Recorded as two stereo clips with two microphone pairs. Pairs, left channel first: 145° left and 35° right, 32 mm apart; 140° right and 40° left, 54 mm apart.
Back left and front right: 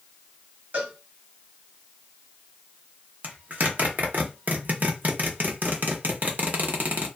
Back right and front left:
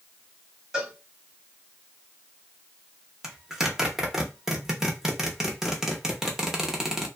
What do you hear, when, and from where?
0.7 s a cowbell: 40° right, 1.7 m
3.2 s a zipper: 45° right, 0.8 m